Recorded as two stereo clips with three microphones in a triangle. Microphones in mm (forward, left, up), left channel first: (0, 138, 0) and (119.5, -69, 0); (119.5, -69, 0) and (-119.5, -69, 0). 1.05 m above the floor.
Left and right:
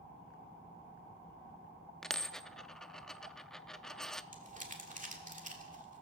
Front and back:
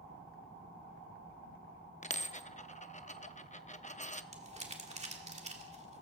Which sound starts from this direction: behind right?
Crumpling, at 4.3 s.